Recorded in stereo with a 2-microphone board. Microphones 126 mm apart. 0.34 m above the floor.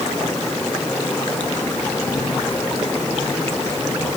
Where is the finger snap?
No finger snap in this recording.